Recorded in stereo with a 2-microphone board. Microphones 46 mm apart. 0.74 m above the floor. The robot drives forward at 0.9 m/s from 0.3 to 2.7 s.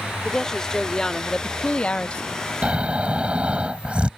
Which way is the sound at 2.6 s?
25° right (ahead or behind).